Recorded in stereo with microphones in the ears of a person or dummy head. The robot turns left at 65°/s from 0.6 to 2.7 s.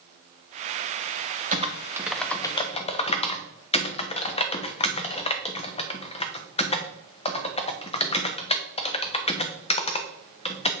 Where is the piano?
No piano in this recording.